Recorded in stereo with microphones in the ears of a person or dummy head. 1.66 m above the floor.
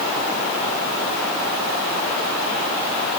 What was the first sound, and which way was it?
Only background noise.